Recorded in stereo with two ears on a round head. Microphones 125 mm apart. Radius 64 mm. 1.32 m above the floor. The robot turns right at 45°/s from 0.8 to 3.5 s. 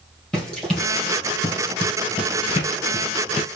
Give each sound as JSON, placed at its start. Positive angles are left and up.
{"t": 0.3, "sound": "running footsteps", "side_deg": 5, "distance_m": 3.0}